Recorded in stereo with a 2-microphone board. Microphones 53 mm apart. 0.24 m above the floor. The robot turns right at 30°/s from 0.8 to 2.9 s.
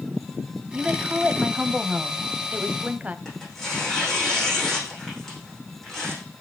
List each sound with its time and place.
0.7 s a woman speaking: 20° right (ahead or behind), 1.1 m; by 3.1 s 25° right (ahead or behind), 1.1 m
3.2 s tearing paper: 5° left (ahead or behind), 9 m